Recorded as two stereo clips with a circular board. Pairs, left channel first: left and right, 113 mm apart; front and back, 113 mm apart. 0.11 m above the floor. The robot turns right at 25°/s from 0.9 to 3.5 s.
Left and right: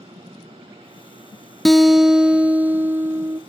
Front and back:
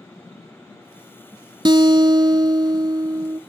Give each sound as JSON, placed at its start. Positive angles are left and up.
{"t": 1.6, "sound": "a guitar", "azimuth_deg": 180, "distance_m": 0.5}